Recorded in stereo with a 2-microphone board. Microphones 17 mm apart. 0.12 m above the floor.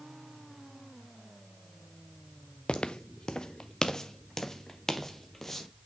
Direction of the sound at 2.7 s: 85° left.